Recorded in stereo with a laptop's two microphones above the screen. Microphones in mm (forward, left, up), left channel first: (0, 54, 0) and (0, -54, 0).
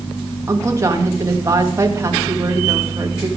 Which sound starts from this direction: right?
A woman speaking, at 0.5 s.